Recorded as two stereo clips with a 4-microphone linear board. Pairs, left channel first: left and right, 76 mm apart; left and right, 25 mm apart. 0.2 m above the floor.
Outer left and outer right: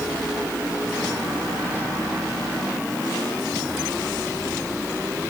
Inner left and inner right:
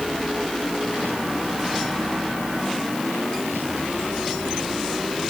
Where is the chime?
I don't hear a chime.